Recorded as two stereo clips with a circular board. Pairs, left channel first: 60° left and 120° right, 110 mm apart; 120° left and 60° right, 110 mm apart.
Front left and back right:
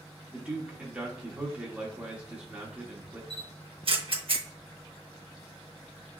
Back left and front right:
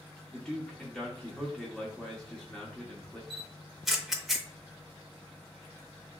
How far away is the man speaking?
About 0.8 m.